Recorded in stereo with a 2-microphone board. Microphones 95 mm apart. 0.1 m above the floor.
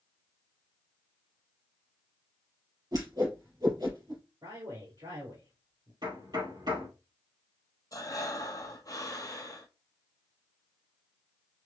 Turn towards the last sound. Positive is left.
turn(degrees=40)  # may be behind; listen again after turning